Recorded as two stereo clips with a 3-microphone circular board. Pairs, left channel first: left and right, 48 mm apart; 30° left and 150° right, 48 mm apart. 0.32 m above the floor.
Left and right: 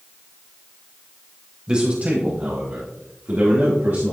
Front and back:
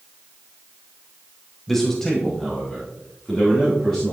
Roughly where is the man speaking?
Ahead right.